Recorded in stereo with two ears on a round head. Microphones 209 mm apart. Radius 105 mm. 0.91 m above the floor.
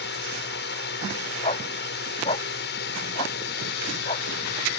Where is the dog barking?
25° left (ahead or behind).